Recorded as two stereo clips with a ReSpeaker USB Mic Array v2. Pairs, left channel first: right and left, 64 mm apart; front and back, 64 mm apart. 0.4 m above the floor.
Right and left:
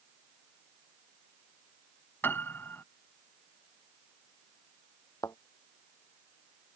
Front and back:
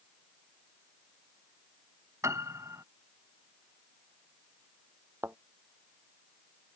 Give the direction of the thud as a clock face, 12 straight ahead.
4 o'clock.